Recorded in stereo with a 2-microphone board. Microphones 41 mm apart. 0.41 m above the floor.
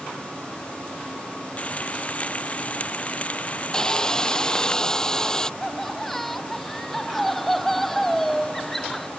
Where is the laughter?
5° left (ahead or behind).